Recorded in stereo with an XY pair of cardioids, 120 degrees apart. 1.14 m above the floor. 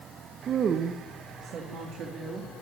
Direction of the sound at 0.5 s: 45° right.